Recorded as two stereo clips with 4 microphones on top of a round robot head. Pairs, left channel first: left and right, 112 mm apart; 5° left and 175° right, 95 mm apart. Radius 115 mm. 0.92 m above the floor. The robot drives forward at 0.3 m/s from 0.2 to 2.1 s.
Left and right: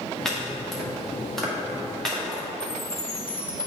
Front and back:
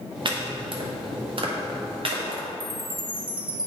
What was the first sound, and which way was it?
Chopping, 175° left.